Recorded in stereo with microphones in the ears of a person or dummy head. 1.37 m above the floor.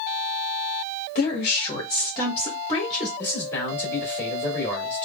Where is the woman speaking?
45° left (ahead or behind), 1.0 m; by 3.1 s 5° left (ahead or behind), 1.7 m.